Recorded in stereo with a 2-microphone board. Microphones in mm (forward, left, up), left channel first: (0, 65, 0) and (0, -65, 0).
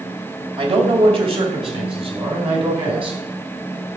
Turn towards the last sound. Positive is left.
turn(degrees=-45)  # may be behind; listen again after turning